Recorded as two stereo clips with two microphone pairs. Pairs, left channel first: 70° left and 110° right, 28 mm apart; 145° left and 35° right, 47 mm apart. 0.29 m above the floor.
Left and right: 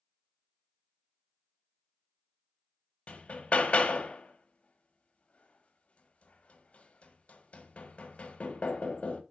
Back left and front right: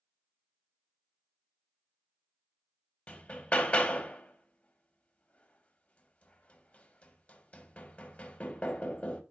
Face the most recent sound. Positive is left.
turn(degrees=85)